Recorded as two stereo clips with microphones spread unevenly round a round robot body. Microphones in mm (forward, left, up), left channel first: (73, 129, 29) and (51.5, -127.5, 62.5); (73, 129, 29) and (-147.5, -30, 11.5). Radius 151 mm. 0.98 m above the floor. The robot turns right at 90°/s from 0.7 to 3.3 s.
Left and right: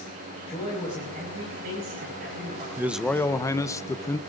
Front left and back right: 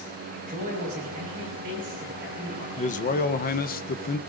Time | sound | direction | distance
0.5 | a man speaking | 160° left | 5 m
2.8 | a man speaking | 10° right | 0.7 m